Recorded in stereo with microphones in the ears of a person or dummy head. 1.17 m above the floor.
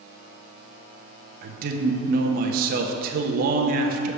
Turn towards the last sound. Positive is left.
turn(degrees=-50)  # may be behind; listen again after turning